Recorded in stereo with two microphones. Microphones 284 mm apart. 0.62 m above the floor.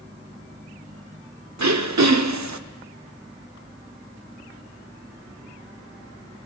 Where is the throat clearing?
75° right (ahead or behind), 0.5 m.